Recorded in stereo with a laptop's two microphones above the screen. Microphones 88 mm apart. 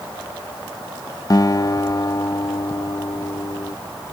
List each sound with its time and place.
1.3 s a guitar: 40° left (ahead or behind)